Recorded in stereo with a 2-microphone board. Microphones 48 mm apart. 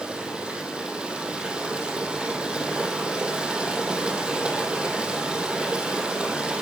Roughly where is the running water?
Centre.